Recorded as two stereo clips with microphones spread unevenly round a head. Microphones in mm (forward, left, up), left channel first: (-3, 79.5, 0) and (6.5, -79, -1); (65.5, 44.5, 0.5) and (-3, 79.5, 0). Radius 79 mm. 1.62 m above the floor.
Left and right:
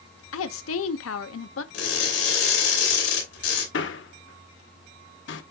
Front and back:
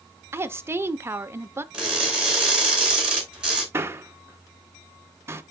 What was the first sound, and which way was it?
A woman speaking, 95° left.